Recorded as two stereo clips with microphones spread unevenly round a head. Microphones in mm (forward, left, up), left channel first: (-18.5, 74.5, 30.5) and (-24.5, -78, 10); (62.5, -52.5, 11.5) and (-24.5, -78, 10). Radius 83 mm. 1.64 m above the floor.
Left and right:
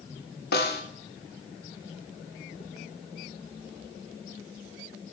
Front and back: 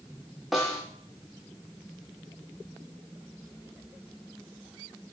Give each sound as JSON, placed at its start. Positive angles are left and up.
{"t": 0.5, "sound": "a snare drum", "azimuth_deg": 105, "distance_m": 1.8}